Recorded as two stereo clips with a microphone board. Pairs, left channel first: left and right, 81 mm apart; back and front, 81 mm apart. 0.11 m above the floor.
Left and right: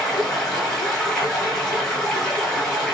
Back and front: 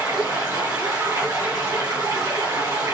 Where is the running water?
10° left, 1.6 m.